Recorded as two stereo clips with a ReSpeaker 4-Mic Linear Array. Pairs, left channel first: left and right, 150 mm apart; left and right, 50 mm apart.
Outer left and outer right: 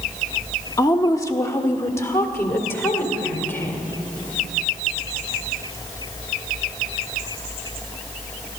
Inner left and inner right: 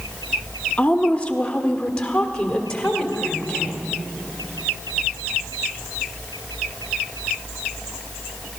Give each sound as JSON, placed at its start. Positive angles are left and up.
{"t": 0.8, "sound": "a woman speaking", "side_deg": 25, "distance_m": 0.9}